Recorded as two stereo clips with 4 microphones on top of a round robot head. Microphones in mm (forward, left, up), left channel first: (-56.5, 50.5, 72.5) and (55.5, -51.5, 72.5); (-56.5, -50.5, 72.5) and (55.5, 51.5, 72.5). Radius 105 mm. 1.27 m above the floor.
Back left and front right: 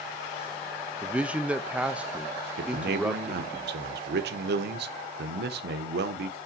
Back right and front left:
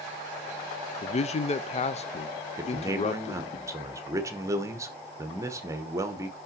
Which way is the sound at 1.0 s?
120° right.